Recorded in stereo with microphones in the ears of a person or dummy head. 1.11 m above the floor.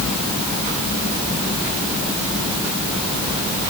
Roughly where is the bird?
I don't hear a bird.